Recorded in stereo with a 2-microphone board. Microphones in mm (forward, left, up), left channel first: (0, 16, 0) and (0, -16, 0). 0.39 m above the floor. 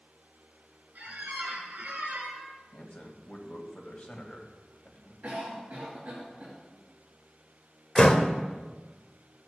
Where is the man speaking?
50° left (ahead or behind), 2 m.